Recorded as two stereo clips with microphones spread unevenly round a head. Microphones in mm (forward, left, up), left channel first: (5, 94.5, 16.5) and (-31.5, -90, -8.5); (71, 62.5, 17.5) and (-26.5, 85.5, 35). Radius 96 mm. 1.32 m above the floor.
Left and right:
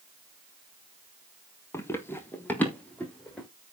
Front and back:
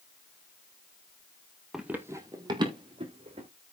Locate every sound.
1.7 s running footsteps: 115° left, 1.4 m; by 3.5 s 160° left, 3.5 m